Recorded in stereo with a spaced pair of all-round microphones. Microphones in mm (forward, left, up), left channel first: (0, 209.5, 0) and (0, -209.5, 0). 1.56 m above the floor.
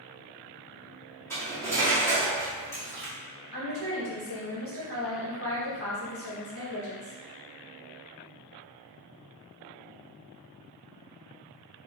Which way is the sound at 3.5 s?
30° left (ahead or behind).